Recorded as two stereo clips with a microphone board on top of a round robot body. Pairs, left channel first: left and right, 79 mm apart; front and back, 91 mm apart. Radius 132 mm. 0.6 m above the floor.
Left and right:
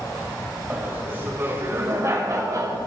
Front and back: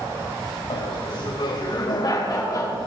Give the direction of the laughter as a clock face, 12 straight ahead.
1 o'clock.